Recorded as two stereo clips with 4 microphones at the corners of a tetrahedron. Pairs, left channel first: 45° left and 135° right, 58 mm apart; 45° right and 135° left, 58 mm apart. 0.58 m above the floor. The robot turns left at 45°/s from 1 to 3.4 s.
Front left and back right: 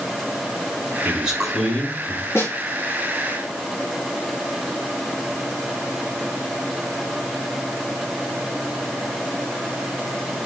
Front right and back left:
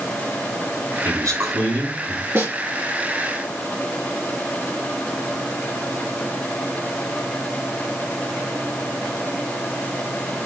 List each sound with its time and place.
1.1 s a man speaking: 160° left, 5.5 m; by 2.2 s 105° left, 5.5 m
2.4 s a snare drum: 90° left, 4 m; by 2.5 s 80° left, 4 m